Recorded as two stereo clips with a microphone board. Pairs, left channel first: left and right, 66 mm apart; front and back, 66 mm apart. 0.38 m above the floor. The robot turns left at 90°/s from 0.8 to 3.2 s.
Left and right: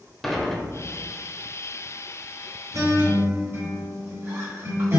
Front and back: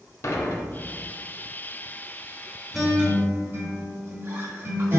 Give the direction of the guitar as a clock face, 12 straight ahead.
3 o'clock.